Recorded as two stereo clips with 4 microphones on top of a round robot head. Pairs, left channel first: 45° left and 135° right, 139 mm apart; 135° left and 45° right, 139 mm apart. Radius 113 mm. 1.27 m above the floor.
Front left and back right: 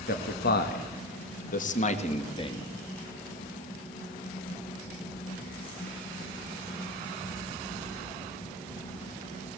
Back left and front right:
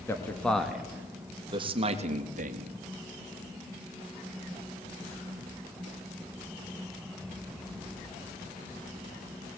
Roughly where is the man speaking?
Ahead left.